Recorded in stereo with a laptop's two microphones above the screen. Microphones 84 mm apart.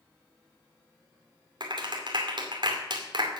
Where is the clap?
65° right (ahead or behind), 2.5 m.